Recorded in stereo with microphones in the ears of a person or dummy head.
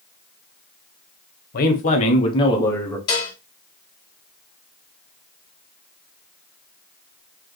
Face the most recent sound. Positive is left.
turn(degrees=25)  # may be behind; listen again after turning